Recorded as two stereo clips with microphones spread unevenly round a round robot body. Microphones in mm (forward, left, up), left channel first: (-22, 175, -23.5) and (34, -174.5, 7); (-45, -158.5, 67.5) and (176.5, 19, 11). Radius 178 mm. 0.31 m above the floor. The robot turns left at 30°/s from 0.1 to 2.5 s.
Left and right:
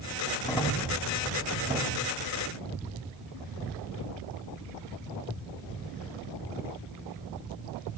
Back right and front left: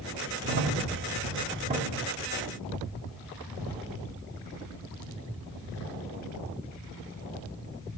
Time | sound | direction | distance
0.4 | a crack | 30° left | 2 m